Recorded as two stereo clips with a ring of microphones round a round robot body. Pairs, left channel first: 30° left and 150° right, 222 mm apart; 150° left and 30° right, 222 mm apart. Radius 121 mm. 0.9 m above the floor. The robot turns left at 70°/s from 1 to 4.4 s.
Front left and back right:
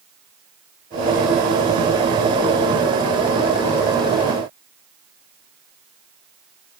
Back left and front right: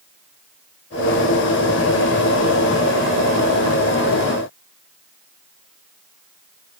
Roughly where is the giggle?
No giggle in this recording.